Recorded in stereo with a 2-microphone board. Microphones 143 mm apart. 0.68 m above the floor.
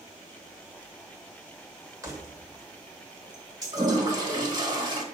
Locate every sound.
2.0 s keys jangling: 25° right (ahead or behind), 1.6 m
3.7 s a toilet flushing: 30° right (ahead or behind), 1.4 m